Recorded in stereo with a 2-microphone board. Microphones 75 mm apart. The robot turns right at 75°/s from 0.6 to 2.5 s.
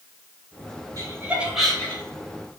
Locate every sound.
1.0 s laughter: 50° right (ahead or behind), 2.5 m; by 2.0 s 30° left (ahead or behind), 2.5 m